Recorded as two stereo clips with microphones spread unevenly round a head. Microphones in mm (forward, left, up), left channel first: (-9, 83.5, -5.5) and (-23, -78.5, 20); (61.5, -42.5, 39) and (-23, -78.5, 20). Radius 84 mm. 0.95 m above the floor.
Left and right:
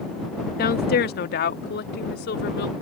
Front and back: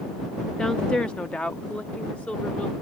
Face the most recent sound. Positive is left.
turn(degrees=105)